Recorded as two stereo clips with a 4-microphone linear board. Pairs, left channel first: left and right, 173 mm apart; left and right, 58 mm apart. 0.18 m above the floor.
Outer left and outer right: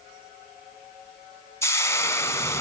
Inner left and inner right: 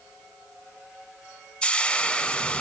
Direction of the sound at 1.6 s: 15° left (ahead or behind).